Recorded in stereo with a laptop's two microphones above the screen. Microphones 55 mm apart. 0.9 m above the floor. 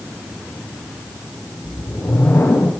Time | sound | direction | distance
1.6 | a whoosh | 55° left (ahead or behind) | 1.9 m